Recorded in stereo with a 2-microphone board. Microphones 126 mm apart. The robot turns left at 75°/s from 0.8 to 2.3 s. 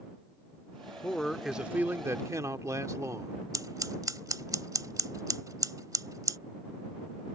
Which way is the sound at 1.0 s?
10° left (ahead or behind).